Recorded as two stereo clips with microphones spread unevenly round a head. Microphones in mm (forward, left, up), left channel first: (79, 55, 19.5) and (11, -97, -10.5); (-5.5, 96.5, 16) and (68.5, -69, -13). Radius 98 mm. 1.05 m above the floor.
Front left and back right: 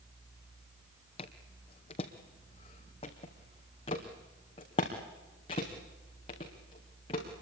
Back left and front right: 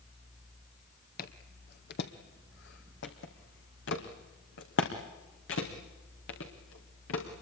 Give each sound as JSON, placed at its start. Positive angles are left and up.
{"t": 1.2, "sound": "footsteps", "azimuth_deg": 115, "distance_m": 1.8}